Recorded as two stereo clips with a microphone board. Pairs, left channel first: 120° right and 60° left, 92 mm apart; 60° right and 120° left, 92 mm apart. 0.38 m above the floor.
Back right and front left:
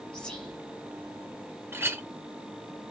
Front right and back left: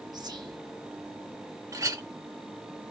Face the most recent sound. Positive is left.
turn(degrees=105)